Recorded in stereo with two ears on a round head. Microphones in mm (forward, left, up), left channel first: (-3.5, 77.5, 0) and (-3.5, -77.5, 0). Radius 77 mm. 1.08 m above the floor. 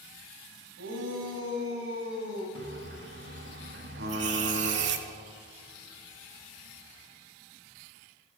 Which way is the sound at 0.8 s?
85° right.